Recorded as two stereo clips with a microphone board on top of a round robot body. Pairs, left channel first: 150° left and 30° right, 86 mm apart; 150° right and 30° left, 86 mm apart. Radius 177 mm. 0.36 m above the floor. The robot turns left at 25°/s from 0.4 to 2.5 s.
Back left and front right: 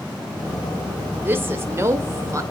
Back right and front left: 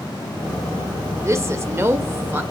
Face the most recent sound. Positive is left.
turn(degrees=-15)